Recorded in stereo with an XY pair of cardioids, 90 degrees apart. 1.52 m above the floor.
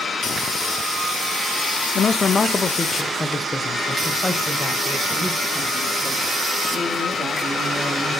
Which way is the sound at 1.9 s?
55° left.